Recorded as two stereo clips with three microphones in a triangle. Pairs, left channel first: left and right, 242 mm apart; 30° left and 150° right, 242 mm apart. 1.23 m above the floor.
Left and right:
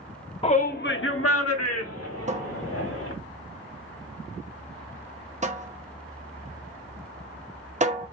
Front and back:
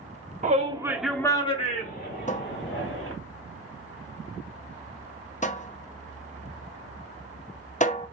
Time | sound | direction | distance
0.4 | a shout | 155° left | 1.0 m
2.3 | a cupboard door | 35° right | 0.6 m